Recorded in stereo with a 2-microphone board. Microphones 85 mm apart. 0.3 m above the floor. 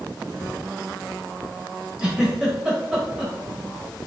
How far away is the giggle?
About 1.1 m.